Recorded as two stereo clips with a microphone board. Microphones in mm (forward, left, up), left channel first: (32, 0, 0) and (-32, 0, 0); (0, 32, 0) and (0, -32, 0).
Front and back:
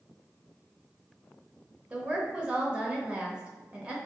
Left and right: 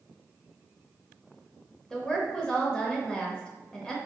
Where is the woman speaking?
145° left, 0.9 m.